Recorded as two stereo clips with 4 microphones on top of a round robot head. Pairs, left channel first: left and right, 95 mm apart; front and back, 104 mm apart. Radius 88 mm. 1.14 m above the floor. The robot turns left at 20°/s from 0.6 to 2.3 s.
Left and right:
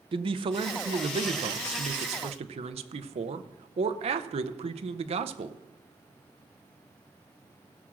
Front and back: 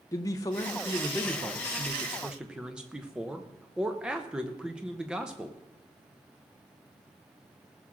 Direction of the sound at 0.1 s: 60° right.